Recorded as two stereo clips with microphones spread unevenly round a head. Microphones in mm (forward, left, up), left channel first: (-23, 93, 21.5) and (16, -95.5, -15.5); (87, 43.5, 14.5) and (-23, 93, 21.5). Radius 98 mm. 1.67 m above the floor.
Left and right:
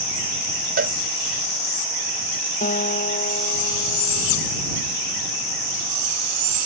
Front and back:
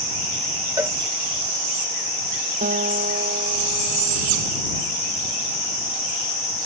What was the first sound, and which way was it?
A cowbell, 130° right.